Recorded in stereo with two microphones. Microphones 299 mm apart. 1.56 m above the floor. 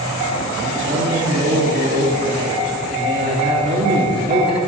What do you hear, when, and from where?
0.6 s a man speaking: 35° right (ahead or behind), 3.5 m